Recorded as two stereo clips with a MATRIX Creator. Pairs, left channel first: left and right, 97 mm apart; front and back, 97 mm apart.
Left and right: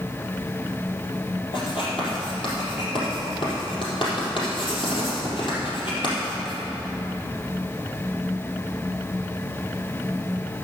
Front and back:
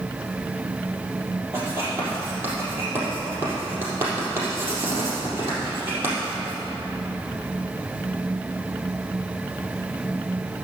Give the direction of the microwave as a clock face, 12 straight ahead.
No microwave in this recording.